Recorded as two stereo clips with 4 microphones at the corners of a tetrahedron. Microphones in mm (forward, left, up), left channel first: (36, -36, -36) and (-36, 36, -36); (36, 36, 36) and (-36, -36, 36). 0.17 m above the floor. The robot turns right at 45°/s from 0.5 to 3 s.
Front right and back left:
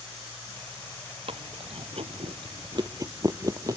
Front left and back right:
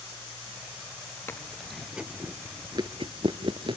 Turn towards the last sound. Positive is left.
turn(degrees=-170)